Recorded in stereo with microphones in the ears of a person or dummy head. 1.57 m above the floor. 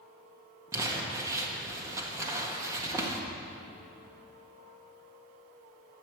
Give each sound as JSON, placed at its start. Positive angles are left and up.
{"t": 0.7, "sound": "crumpling", "side_deg": -20, "distance_m": 1.7}